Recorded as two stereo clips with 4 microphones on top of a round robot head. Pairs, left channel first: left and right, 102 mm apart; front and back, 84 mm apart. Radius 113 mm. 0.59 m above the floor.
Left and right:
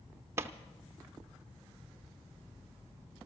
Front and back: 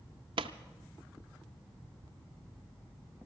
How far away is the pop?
About 0.6 m.